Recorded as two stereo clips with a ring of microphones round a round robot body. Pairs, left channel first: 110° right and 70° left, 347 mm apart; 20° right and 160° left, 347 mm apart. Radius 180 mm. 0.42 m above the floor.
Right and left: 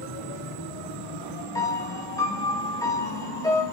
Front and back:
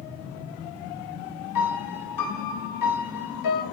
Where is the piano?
35° right, 2.5 m.